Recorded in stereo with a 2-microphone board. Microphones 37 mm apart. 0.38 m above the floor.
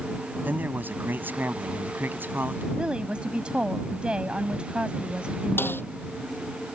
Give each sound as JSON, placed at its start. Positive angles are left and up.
{"t": 0.5, "sound": "a man speaking", "side_deg": -60}
{"t": 2.8, "sound": "a woman speaking", "side_deg": -30}
{"t": 5.6, "sound": "a snare drum", "side_deg": 85}